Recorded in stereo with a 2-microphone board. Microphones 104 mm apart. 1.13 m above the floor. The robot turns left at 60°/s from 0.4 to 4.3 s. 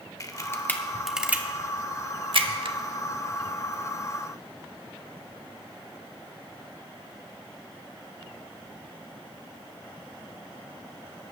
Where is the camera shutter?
30° left (ahead or behind), 1.0 m; by 2.8 s 60° right (ahead or behind), 1.0 m.